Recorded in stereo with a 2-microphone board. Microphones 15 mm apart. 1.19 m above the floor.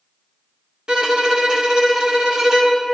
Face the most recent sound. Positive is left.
turn(degrees=-60)  # may be behind; listen again after turning